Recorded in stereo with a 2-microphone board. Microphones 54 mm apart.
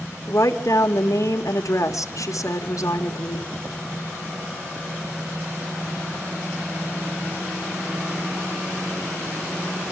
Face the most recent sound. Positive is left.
turn(degrees=75)  # may be behind; listen again after turning